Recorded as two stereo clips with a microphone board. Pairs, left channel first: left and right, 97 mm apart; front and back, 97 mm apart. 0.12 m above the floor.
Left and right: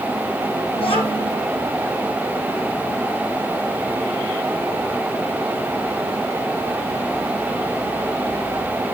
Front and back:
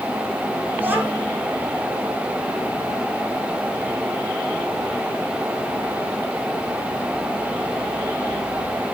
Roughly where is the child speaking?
Left.